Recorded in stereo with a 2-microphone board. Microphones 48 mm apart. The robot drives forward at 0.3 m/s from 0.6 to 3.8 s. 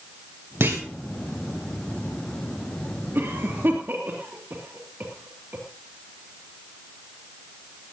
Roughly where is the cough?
Right.